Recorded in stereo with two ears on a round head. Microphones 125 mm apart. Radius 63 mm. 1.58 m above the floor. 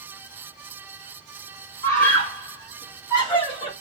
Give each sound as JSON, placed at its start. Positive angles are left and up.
{"t": 1.8, "sound": "a scream", "side_deg": 20, "distance_m": 2.0}